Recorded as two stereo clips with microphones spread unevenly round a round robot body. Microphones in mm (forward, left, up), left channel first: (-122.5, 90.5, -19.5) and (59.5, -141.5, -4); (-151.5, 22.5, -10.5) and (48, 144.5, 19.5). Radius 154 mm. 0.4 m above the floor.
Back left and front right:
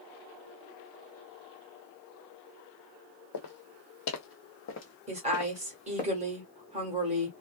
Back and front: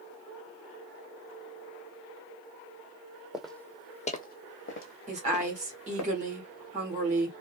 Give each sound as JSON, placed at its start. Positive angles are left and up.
{"t": 3.3, "sound": "footsteps", "azimuth_deg": 115, "distance_m": 0.9}
{"t": 5.1, "sound": "a woman speaking", "azimuth_deg": -5, "distance_m": 1.1}